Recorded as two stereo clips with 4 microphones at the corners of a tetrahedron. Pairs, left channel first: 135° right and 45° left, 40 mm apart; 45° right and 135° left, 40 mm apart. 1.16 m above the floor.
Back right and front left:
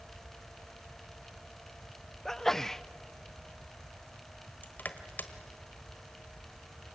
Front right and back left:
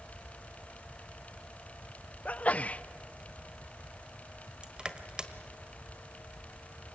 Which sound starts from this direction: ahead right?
A sneeze, at 2.2 s.